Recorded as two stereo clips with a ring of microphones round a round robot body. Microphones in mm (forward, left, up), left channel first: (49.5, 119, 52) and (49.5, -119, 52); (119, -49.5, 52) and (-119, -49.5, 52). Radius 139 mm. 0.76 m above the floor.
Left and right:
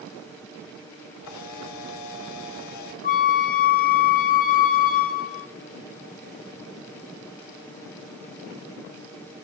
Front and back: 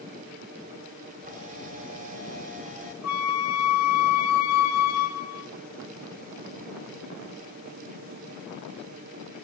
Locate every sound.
1.2 s a camera shutter: 115° left, 1.6 m
3.0 s a flute: 30° left, 0.8 m